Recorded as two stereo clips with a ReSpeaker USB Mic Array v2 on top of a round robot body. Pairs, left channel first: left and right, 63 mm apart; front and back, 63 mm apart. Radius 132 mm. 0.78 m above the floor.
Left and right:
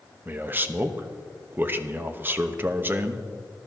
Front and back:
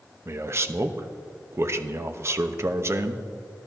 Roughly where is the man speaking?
Behind right.